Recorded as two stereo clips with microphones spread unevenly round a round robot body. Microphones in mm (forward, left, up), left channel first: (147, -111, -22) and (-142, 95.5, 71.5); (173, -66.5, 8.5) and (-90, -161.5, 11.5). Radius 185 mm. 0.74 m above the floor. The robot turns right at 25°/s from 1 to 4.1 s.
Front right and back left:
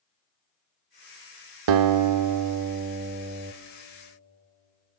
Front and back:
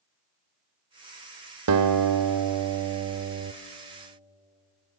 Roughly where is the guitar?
Behind.